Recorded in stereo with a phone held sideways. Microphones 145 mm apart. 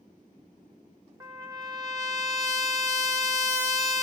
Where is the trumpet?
20° right (ahead or behind), 0.9 m.